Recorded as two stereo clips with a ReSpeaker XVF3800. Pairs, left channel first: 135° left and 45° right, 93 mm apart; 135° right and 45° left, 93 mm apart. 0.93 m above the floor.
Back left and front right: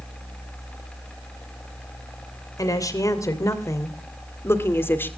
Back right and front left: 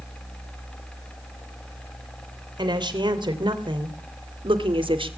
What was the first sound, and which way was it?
A woman speaking, 85° left.